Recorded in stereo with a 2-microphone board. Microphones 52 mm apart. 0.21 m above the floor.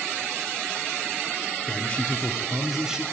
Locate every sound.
1.7 s a man speaking: 30° left (ahead or behind), 1.2 m; by 3.0 s 15° right (ahead or behind), 1.1 m